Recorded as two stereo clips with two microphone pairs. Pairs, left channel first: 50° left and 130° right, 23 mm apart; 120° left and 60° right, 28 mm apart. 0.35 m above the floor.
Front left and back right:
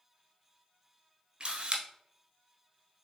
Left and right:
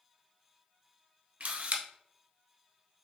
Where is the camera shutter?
85° right, 1.0 m.